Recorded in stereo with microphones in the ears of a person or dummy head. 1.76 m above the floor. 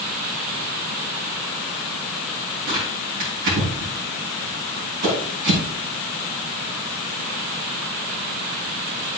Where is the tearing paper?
60° right (ahead or behind), 3.5 m.